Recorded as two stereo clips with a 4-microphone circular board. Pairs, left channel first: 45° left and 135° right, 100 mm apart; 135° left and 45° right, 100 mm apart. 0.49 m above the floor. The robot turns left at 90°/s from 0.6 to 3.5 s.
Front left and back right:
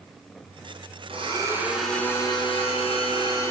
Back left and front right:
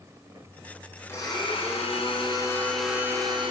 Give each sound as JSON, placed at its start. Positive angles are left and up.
{"t": 1.1, "sound": "a blender", "azimuth_deg": -160, "distance_m": 4.5}